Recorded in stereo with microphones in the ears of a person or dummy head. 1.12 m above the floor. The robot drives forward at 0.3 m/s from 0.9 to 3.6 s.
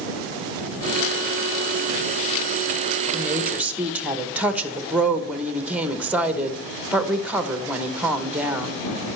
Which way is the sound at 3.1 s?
Centre (ahead or behind).